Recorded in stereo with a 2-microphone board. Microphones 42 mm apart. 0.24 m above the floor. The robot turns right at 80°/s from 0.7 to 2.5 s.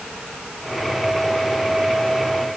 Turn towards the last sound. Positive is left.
No sound to turn to.